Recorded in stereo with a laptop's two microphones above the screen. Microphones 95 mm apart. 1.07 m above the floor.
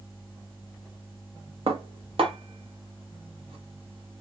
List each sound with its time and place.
1.7 s dishes clattering: 70° right (ahead or behind), 0.7 m